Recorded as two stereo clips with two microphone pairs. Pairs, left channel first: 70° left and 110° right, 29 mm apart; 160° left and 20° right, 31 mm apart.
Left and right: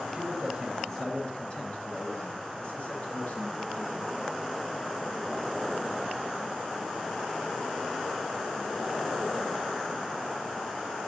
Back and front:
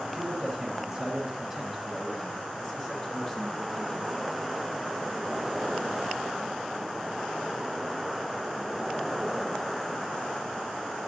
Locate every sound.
0.1 s a man speaking: 45° right, 1.5 m; by 4.3 s 80° left, 4 m